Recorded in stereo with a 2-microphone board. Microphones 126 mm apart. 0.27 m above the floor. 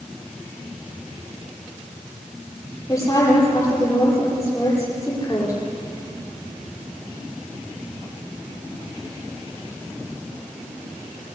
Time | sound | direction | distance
2.9 | a woman speaking | 25° left (ahead or behind) | 10 m